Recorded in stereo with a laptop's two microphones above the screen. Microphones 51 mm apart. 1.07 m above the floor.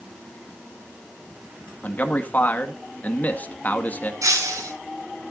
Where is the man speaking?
30° left (ahead or behind), 1.8 m.